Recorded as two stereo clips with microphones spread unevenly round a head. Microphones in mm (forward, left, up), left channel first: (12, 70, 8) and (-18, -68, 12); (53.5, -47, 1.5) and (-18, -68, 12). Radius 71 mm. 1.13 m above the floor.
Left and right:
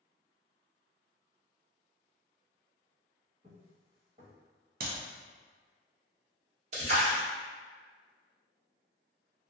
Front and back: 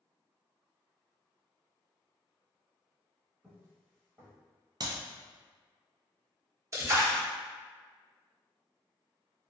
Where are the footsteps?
115° right, 1.4 m.